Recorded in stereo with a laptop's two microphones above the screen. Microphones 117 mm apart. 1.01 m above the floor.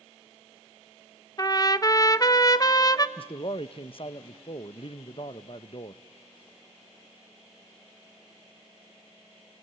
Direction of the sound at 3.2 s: 50° left (ahead or behind).